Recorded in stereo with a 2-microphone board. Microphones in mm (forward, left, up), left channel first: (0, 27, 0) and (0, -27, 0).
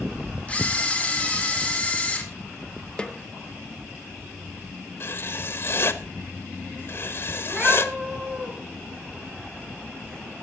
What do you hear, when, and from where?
0.5 s a camera shutter: 20° left (ahead or behind), 2 m
3.0 s a snare drum: 15° left (ahead or behind), 0.9 m
5.0 s writing: 45° left (ahead or behind), 0.9 m
7.4 s a cat meowing: 20° right (ahead or behind), 4 m